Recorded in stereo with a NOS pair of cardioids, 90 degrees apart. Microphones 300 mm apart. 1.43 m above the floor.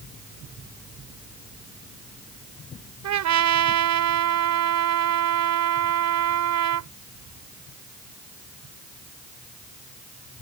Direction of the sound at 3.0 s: 65° right.